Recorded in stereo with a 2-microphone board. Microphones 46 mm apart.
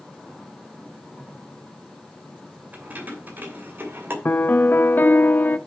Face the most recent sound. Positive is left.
turn(degrees=50)  # may be behind; listen again after turning